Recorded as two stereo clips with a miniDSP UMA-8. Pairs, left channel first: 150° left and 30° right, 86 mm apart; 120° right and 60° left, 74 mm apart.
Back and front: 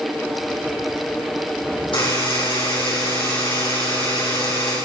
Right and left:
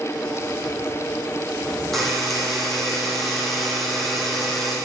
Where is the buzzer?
155° left, 9 m.